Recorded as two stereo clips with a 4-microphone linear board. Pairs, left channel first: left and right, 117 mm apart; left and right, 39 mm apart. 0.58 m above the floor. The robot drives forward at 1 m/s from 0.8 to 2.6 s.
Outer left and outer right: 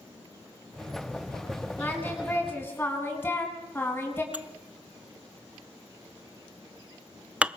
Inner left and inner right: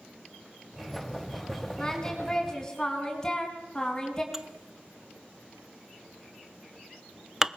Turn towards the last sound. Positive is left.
turn(degrees=-10)  # may be behind; listen again after turning